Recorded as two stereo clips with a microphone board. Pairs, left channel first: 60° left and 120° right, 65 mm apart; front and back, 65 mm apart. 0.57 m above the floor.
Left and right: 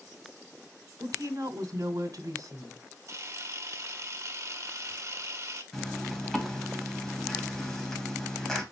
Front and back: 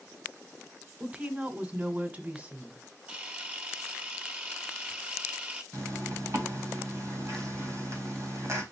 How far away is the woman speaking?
About 2 m.